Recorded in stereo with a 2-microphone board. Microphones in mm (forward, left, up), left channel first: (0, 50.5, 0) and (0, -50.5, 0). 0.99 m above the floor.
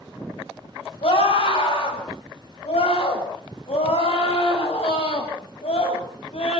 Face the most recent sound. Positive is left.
turn(degrees=80)